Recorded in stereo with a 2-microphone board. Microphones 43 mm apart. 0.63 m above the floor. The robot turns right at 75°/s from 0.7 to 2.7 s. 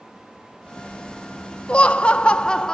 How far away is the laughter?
About 0.6 m.